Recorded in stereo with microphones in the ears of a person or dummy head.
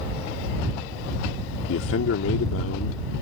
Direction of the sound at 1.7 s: 85° left.